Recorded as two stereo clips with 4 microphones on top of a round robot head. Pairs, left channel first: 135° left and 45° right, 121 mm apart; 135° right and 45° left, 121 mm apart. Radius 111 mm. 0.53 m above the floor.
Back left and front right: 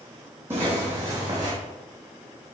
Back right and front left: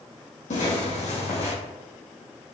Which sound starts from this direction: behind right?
Footsteps, at 0.5 s.